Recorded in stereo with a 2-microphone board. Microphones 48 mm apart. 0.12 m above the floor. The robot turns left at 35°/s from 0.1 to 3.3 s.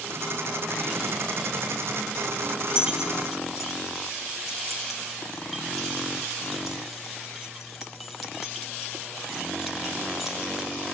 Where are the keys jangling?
20° right (ahead or behind), 2.5 m; by 10.7 s centre (ahead or behind), 2.5 m.